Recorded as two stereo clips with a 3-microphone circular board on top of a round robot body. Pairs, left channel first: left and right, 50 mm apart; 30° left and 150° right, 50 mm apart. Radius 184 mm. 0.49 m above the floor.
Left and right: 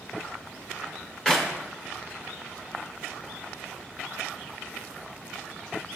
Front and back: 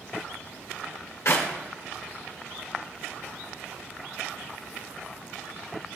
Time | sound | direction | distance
1.2 | a clap | 20° left | 1.8 m